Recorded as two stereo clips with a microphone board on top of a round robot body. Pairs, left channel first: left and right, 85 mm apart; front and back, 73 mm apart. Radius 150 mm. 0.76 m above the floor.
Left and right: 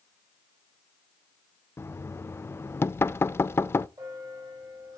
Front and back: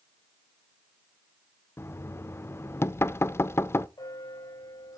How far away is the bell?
About 3.5 m.